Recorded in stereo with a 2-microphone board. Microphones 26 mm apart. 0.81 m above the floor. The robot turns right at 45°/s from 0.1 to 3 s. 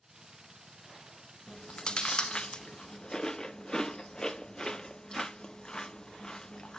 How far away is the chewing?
About 0.6 m.